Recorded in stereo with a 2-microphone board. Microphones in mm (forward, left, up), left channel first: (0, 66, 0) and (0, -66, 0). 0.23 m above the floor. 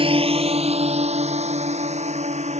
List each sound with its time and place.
0.0 s a drone: 40° right (ahead or behind); by 2.6 s 55° right (ahead or behind)